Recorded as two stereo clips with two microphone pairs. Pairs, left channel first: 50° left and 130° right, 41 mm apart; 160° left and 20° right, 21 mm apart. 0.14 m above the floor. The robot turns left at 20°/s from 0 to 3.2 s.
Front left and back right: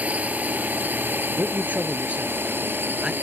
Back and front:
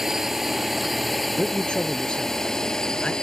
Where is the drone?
85° right; by 3.2 s 145° right.